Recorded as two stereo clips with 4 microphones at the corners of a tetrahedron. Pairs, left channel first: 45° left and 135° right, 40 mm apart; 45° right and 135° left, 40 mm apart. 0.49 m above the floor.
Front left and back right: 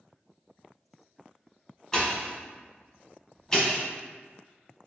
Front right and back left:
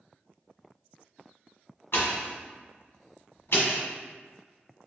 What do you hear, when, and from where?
1.9 s a pop: 35° right, 1.3 m